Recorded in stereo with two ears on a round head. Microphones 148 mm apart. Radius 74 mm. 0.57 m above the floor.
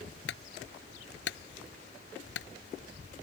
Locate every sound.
0.3 s a clunk: 75° left (ahead or behind)